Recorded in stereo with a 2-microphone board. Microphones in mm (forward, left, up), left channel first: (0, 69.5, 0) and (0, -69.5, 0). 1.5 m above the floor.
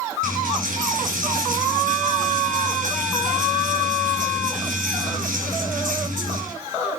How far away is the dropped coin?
About 5 m.